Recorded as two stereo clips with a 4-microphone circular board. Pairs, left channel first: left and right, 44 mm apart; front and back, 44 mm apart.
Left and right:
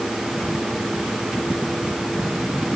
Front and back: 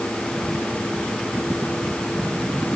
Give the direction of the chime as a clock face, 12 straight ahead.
I don't hear a chime.